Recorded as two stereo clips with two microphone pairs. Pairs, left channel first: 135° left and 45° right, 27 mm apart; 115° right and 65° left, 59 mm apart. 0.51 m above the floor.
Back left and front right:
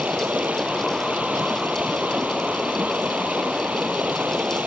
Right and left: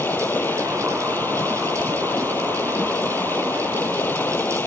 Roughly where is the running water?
Ahead right.